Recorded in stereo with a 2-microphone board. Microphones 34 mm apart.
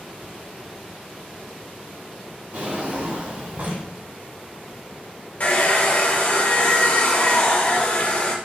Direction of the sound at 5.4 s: 45° left (ahead or behind).